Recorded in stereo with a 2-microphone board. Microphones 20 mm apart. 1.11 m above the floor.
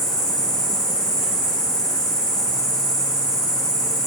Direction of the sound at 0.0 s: 60° left (ahead or behind).